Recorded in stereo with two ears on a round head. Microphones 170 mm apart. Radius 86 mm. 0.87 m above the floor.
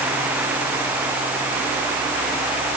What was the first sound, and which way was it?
Only background noise.